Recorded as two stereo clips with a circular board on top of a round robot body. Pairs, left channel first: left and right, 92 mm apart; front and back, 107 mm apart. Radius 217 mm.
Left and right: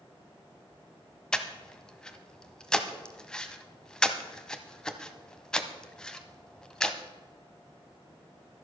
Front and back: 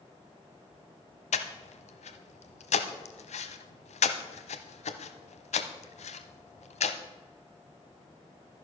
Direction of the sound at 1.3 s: 5° left.